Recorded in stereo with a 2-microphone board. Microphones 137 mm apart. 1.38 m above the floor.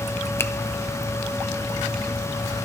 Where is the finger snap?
20° left (ahead or behind), 0.6 m.